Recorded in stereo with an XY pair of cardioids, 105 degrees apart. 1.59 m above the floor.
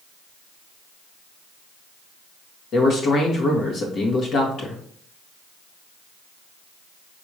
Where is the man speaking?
65° left, 1.8 m.